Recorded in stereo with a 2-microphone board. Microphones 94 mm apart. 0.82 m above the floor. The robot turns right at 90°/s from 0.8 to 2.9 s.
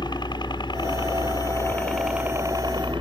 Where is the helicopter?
55° left (ahead or behind); by 3.0 s 65° right (ahead or behind).